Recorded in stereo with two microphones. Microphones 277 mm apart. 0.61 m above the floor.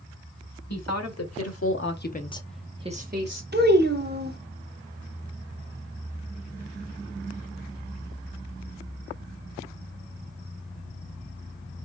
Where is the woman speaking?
70° left (ahead or behind), 1.8 m; by 3.4 s 45° right (ahead or behind), 1.1 m.